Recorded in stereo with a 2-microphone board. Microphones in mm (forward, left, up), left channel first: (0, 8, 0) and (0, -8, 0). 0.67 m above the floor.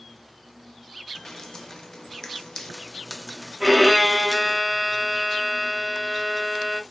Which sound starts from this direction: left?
Dripping, at 1.1 s.